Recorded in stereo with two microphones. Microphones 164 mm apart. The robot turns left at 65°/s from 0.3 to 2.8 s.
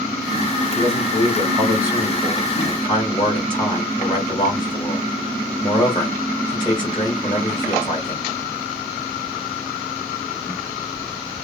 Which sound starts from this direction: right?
A man speaking, at 0.8 s.